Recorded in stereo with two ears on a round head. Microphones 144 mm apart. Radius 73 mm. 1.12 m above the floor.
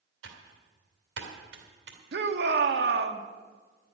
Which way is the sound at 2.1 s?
70° right (ahead or behind).